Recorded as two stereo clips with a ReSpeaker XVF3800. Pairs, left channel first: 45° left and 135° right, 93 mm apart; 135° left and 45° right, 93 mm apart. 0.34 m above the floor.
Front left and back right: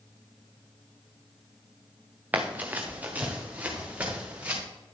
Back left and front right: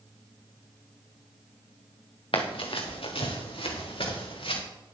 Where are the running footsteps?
155° left, 1.9 m; by 4.6 s 150° left, 4.5 m.